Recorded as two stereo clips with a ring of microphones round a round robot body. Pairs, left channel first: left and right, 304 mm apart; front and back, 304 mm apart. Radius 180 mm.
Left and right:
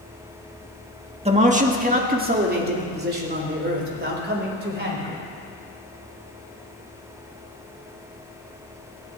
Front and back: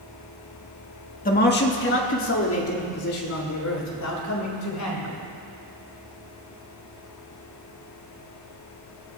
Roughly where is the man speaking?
Ahead right.